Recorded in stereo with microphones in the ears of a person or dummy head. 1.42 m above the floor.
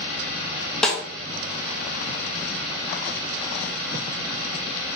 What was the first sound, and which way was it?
A snare drum, centre (ahead or behind).